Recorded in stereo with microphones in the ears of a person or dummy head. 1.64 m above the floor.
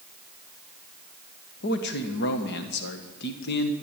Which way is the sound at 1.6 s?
50° left (ahead or behind).